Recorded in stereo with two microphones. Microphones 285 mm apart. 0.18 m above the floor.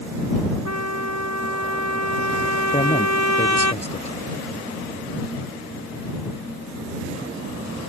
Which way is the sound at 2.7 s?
25° left (ahead or behind).